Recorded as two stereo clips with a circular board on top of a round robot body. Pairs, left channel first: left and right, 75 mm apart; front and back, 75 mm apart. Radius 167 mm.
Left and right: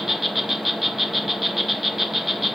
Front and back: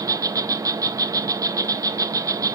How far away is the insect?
About 1.1 m.